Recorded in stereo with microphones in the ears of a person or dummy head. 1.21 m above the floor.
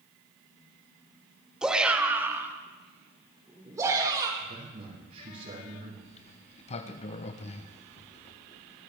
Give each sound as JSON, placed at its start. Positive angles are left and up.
{"t": 1.6, "sound": "a shout", "side_deg": 0, "distance_m": 1.4}
{"t": 4.4, "sound": "a man speaking", "side_deg": -45, "distance_m": 5.5}
{"t": 6.0, "sound": "a sliding door", "side_deg": 30, "distance_m": 0.8}